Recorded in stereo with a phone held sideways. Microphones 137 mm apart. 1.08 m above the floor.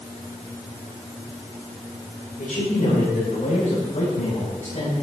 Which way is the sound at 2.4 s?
85° left.